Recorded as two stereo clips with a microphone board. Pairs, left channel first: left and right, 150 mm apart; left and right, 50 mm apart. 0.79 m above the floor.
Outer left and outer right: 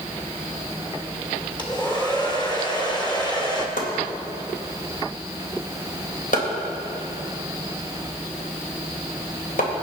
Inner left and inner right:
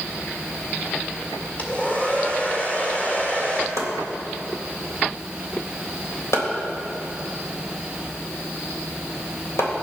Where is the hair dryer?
30° left (ahead or behind), 1.7 m.